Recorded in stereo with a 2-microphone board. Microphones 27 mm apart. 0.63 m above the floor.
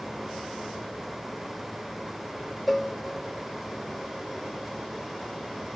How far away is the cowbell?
About 1.1 m.